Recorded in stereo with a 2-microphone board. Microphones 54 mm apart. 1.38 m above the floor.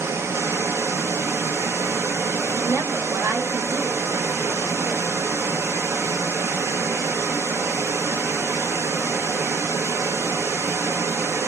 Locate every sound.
0.0 s running water: 55° right (ahead or behind), 0.7 m
2.5 s a woman speaking: 55° right (ahead or behind), 1.0 m